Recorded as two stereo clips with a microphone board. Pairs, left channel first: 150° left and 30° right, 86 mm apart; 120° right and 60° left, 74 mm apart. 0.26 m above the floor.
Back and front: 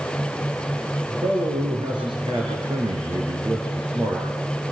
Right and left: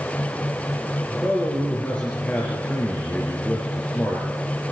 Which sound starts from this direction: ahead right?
A man speaking, at 1.1 s.